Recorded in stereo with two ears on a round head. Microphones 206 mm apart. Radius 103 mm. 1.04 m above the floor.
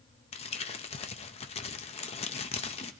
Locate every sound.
0.3 s crumpling: 25° left (ahead or behind), 0.7 m